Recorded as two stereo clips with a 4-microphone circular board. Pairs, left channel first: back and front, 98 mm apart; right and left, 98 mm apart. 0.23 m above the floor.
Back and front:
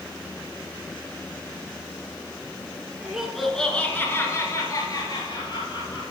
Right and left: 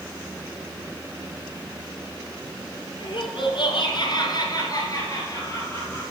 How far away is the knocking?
No knocking in this recording.